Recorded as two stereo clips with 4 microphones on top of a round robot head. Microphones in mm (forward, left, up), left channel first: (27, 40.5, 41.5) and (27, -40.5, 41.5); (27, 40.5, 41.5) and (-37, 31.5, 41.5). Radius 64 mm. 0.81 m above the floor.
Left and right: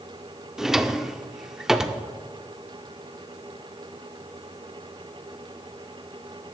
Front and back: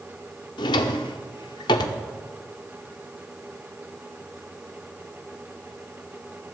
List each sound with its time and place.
0.6 s a drawer: 5° right, 0.6 m